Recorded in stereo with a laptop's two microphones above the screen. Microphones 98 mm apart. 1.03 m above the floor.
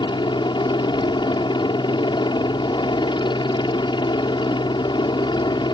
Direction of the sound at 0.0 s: 55° left (ahead or behind).